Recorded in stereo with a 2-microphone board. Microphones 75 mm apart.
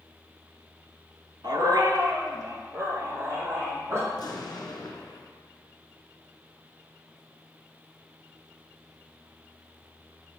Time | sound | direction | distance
1.4 | a dog barking | 75° right (ahead or behind) | 0.9 m
4.1 | an explosion | 70° left (ahead or behind) | 1.5 m